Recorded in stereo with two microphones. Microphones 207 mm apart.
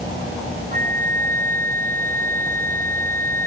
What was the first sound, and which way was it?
A flute, 45° right (ahead or behind).